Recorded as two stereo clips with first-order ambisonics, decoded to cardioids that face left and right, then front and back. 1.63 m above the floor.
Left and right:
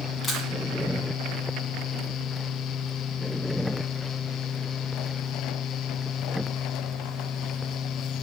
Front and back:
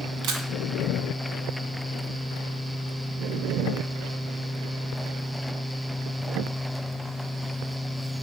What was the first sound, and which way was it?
A camera shutter, 155° left.